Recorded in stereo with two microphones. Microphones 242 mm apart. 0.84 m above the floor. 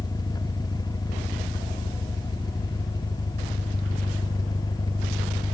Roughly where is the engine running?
Centre.